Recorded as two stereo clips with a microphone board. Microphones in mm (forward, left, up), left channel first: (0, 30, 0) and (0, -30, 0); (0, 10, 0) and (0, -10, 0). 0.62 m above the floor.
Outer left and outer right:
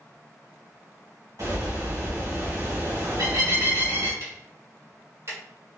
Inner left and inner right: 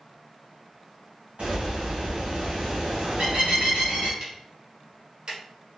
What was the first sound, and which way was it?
A bird, 70° right (ahead or behind).